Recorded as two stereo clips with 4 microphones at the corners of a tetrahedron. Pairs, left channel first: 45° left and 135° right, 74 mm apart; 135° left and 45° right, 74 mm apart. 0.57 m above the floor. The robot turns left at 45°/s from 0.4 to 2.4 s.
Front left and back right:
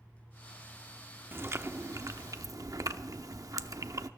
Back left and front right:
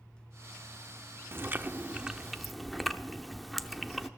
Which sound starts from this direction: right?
Chewing, at 1.3 s.